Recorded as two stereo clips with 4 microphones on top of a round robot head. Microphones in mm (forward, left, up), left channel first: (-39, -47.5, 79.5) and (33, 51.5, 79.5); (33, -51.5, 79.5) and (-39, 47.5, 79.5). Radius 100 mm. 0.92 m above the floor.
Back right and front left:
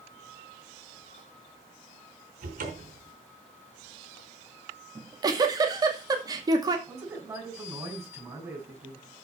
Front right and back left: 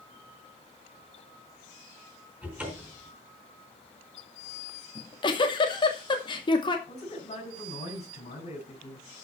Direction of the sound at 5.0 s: 5° right.